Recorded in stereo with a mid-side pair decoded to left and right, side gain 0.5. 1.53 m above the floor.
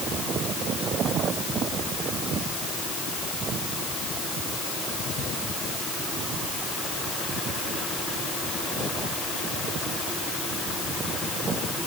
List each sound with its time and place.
Only background noise.